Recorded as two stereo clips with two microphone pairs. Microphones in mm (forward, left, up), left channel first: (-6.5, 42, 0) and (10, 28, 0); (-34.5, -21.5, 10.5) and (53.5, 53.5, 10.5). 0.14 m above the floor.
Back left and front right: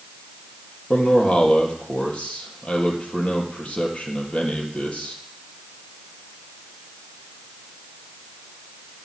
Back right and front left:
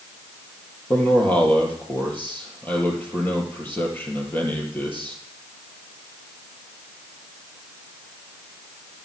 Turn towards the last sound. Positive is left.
turn(degrees=145)